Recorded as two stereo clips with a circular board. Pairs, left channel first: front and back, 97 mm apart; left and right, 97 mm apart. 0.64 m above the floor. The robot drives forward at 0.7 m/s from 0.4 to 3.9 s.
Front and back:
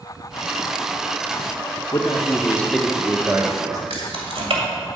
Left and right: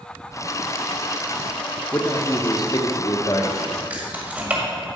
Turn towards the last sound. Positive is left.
turn(degrees=-165)